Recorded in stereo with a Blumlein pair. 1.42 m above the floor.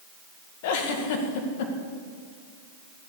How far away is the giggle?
About 1.8 m.